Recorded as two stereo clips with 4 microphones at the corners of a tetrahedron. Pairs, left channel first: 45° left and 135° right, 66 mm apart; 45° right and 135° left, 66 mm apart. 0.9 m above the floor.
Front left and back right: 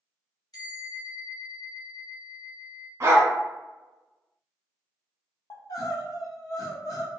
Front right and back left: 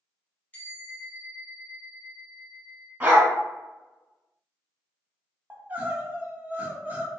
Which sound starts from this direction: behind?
A dog barking, at 3.0 s.